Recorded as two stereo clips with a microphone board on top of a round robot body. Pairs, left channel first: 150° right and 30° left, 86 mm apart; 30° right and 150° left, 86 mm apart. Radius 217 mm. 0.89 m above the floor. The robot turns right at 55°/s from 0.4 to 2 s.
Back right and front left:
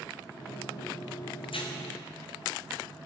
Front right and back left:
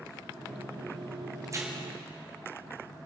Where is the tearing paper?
160° right, 2 m; by 1.7 s 145° right, 2 m.